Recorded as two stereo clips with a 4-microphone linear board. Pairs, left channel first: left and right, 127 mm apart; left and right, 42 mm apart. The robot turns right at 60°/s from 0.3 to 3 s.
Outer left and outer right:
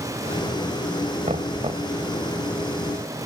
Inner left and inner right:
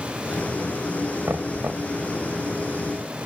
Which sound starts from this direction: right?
Knocking, at 1.2 s.